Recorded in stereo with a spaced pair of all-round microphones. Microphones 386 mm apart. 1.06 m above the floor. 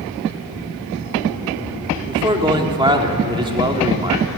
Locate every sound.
2.1 s a man speaking: 10° right (ahead or behind), 2 m